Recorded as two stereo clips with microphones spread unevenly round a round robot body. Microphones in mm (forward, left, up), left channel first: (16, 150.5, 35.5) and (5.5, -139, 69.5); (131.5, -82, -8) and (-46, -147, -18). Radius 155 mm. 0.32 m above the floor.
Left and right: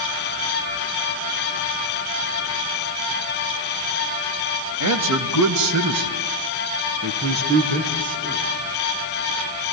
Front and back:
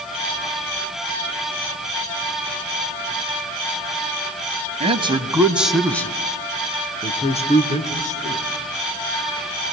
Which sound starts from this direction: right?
A man speaking, at 4.8 s.